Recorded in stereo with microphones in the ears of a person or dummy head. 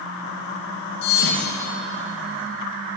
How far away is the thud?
About 3 m.